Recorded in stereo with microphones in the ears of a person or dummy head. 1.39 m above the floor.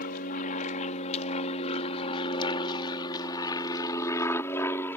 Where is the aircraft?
50° left (ahead or behind); by 5.0 s 15° left (ahead or behind).